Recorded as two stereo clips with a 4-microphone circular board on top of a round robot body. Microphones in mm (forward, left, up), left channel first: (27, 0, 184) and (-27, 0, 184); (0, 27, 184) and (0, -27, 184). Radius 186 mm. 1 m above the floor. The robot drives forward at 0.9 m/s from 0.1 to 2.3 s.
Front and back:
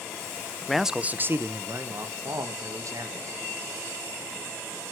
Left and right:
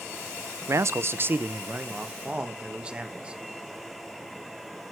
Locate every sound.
0.7 s a man speaking: 85° right, 0.7 m; by 3.4 s 160° right, 1.6 m